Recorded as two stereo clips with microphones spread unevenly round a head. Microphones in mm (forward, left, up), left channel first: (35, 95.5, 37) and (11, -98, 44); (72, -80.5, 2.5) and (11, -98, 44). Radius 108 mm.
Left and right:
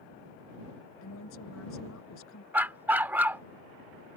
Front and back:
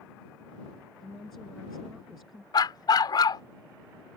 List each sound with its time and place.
1.0 s a woman speaking: 105° left; by 2.4 s 110° left
2.5 s a dog barking: 25° right